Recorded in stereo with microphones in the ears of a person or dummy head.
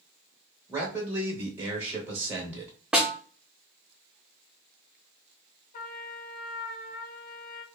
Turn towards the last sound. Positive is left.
turn(degrees=45)  # may be behind; listen again after turning